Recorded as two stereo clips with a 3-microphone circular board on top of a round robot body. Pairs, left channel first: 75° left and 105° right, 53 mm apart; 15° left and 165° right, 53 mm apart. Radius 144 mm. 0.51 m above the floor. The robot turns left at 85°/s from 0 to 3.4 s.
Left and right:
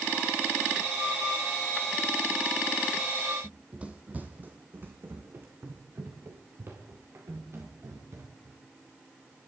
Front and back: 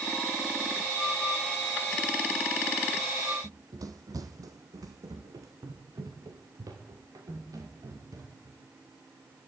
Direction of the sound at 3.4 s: 175° left.